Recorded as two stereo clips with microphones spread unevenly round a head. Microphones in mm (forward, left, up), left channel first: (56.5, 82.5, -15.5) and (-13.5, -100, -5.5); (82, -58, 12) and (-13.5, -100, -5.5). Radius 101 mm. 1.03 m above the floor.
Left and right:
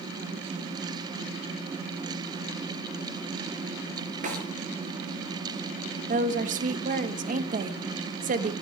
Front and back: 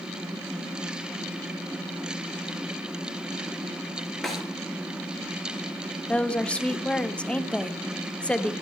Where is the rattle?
I don't hear a rattle.